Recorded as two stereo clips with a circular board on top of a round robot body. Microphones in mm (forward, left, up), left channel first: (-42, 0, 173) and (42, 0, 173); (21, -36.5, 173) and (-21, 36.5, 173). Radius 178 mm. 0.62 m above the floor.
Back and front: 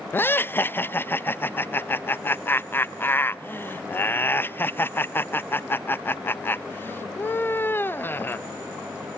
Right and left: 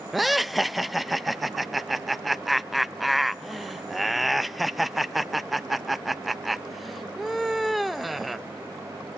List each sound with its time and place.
0.1 s laughter: 150° right, 0.7 m